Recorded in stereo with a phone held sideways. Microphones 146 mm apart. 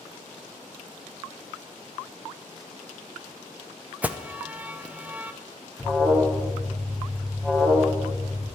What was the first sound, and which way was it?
An alarm, 10° right (ahead or behind).